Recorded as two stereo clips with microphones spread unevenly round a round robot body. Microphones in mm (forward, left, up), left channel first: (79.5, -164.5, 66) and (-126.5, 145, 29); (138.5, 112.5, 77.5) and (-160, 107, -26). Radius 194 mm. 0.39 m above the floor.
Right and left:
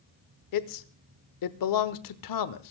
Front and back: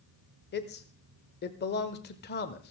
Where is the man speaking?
70° right, 1.1 m.